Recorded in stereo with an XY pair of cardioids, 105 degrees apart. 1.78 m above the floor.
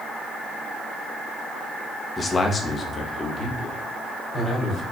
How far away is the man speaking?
About 0.7 m.